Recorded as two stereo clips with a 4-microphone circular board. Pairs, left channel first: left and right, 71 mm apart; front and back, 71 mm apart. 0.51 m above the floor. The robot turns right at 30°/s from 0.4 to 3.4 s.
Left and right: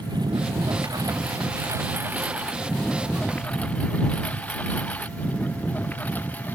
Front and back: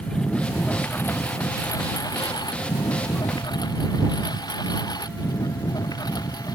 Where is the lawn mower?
80° right; by 6.5 s 25° left.